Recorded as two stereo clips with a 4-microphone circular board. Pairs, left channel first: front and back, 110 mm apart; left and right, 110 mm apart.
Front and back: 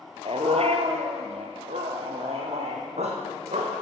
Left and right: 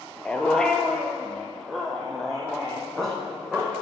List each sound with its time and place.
0.2 s a dog barking: 170° left, 0.7 m; by 3.8 s straight behind, 2.5 m